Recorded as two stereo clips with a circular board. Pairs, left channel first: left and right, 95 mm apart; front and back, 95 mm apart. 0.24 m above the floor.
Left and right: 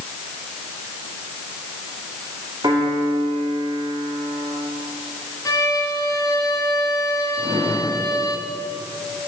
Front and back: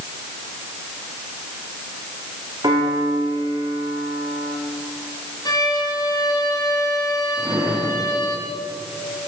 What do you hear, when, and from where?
2.6 s a piano: 135° right, 8.5 m
5.5 s a violin: 40° left, 3.5 m
7.4 s a drawer: 95° right, 7 m